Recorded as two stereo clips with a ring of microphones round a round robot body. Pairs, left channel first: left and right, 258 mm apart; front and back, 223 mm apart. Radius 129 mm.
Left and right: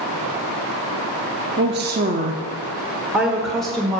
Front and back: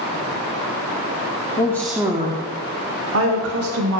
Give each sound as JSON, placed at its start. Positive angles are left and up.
{"t": 1.6, "sound": "a woman speaking", "azimuth_deg": -65, "distance_m": 0.8}